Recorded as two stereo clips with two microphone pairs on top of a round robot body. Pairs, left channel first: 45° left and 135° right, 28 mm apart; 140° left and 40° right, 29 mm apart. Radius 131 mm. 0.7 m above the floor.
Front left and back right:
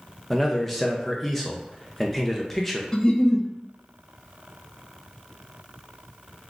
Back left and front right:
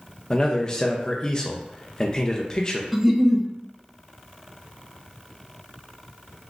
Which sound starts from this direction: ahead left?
A giggle, at 2.9 s.